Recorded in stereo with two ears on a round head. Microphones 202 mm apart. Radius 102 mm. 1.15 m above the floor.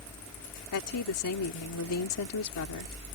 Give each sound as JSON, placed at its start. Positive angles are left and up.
{"t": 0.7, "sound": "a woman speaking", "side_deg": 75}